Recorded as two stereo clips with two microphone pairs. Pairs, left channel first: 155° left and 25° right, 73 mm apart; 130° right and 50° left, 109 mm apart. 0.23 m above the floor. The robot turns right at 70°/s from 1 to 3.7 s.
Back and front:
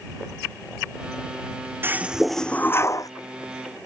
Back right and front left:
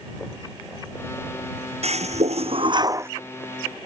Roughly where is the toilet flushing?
Ahead left.